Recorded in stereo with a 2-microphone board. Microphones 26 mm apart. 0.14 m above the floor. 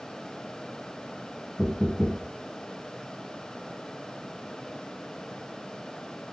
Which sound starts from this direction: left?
Knocking, at 1.6 s.